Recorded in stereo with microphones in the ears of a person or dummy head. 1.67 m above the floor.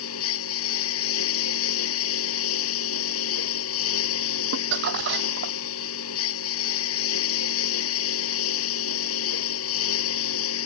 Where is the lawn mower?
75° left (ahead or behind).